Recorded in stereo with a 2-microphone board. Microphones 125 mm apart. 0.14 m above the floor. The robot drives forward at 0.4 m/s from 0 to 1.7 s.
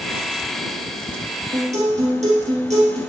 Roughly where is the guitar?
Right.